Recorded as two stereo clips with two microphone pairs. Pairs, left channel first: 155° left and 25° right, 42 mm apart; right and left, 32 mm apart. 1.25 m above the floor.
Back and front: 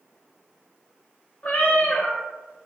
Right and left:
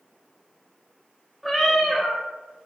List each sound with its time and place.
1.4 s a cat meowing: straight behind, 0.6 m